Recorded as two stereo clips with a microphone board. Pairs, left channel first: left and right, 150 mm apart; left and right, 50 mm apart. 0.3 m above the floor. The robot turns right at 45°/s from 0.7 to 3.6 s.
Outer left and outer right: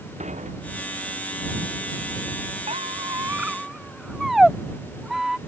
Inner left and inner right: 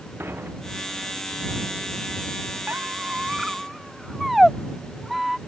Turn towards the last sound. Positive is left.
turn(degrees=-5)  # may be behind; listen again after turning